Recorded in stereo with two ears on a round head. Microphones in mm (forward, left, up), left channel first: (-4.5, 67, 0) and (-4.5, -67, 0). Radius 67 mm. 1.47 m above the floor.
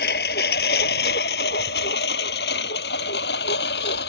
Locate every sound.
0.0 s a lawn mower: 70° left (ahead or behind); by 4.1 s 80° left